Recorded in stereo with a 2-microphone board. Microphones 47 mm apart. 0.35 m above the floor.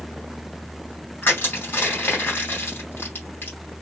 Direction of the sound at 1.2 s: 50° left (ahead or behind).